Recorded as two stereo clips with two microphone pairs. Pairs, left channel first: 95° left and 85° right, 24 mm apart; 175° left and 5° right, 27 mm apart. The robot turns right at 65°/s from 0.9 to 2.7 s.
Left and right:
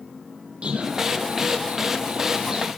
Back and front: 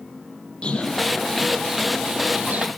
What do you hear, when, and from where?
0.6 s a bird: 135° right, 5.5 m; by 2.7 s 20° right, 5.5 m